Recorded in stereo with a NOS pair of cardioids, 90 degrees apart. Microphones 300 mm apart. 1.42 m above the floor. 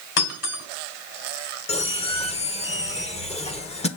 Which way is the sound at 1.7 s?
20° left.